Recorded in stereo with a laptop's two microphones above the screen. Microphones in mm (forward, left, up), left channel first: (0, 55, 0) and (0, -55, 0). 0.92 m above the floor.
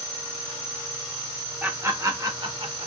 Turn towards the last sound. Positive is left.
turn(degrees=-55)  # may be behind; listen again after turning